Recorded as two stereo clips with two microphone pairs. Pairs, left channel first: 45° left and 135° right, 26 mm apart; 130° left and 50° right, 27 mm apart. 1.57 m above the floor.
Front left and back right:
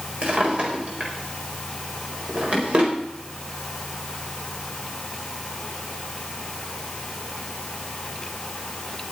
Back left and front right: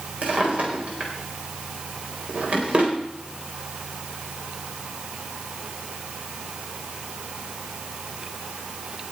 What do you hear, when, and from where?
0.2 s a drawer: 90° right, 4 m